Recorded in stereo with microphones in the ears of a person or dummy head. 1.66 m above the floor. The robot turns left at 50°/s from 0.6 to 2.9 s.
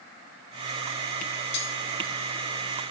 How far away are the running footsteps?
No running footsteps in this recording.